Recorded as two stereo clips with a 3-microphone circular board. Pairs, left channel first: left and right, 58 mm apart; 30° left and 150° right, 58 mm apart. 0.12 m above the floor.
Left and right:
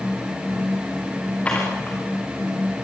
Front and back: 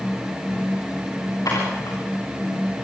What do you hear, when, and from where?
1.4 s dishes clattering: 20° left, 8 m